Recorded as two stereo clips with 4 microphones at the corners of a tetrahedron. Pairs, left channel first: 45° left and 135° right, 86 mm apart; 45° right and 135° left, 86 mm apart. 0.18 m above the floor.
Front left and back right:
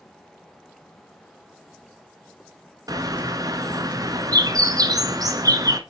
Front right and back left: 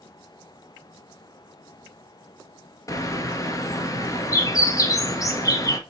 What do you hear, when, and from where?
2.9 s a bird: 95° right, 1.2 m